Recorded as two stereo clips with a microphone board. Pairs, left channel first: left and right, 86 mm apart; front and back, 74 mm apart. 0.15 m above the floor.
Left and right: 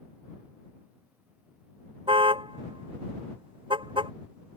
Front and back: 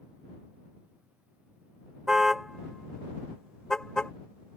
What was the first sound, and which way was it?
A car horn, 95° right.